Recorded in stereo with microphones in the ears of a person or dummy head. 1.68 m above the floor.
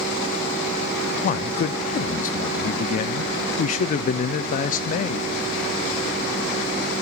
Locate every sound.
1.2 s a man speaking: 50° left (ahead or behind), 0.6 m